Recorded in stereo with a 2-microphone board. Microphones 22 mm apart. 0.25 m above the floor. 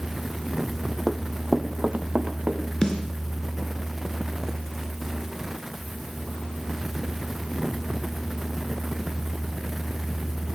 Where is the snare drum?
25° left (ahead or behind), 3 m.